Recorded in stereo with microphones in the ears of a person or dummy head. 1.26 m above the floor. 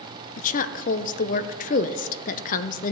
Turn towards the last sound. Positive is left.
turn(degrees=45)  # may be behind; listen again after turning